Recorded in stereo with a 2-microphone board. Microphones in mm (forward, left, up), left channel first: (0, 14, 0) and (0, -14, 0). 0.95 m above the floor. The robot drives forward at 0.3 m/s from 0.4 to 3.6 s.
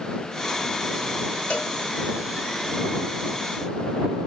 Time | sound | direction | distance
1.5 | a cowbell | 70° left (ahead or behind) | 1.7 m